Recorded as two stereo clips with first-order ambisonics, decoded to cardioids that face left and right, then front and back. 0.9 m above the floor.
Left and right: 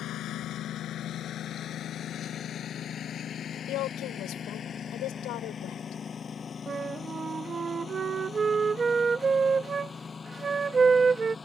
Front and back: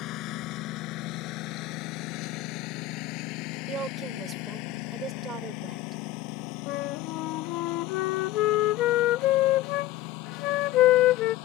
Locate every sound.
0.0 s a lawn mower: 40° left; by 11.4 s 15° left
3.7 s a woman speaking: 125° left
6.7 s a flute: 20° right